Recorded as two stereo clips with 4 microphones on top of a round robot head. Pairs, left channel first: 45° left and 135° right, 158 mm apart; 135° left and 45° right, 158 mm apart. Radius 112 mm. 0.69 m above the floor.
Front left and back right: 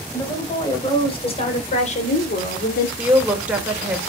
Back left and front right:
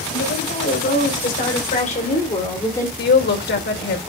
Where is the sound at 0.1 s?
110° left, 5.5 m; by 2.9 s 60° left, 2.5 m.